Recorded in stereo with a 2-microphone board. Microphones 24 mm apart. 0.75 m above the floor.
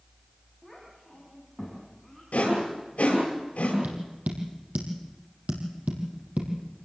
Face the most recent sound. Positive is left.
turn(degrees=-80)